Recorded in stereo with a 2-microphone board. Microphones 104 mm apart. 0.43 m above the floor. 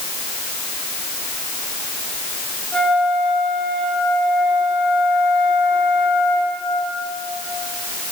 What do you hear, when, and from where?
2.7 s a flute: 5° left (ahead or behind), 8.5 m